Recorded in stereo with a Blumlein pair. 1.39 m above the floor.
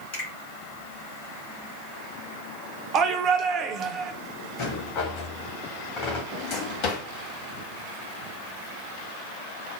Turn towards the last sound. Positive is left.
turn(degrees=40)